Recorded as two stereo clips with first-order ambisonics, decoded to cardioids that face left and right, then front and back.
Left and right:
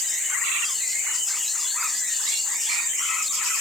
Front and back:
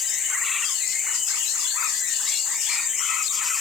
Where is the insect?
15° right, 9.5 m.